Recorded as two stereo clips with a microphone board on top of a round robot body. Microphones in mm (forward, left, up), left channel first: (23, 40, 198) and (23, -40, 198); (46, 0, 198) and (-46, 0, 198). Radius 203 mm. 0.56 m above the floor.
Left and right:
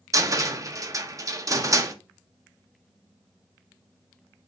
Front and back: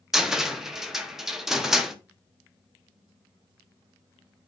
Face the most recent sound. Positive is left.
turn(degrees=-95)